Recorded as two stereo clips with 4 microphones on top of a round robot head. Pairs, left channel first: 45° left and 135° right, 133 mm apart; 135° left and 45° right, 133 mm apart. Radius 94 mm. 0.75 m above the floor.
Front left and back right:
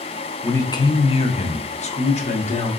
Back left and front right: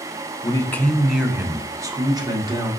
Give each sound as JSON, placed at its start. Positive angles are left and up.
{"t": 0.4, "sound": "a man speaking", "azimuth_deg": 105, "distance_m": 0.6}